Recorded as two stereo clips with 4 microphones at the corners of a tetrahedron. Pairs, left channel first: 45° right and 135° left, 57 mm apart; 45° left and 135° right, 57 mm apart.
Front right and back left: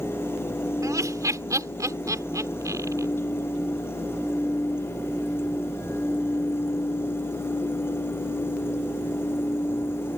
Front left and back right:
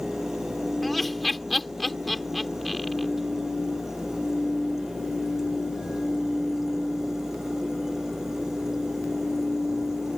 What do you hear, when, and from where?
0.8 s laughter: 135° left